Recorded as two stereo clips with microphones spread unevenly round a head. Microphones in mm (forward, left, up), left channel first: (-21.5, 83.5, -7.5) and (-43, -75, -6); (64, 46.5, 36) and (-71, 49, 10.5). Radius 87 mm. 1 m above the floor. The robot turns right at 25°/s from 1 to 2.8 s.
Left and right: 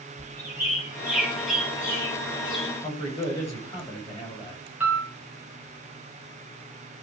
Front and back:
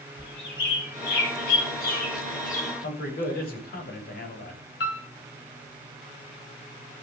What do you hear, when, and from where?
0.2 s a bird: 20° right, 5.5 m; by 2.7 s 25° left, 5.5 m
2.8 s a man speaking: 10° left, 6.5 m
4.8 s a piano: 15° right, 3 m